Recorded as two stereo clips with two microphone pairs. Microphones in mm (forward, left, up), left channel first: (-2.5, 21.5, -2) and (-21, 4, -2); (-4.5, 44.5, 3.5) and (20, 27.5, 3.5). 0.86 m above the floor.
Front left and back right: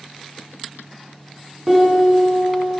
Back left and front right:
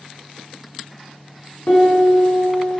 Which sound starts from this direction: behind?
A piano, at 1.7 s.